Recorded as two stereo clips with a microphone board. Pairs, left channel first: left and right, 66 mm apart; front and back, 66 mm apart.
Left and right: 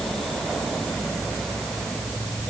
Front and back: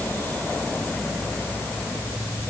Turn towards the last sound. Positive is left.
No sound to turn to.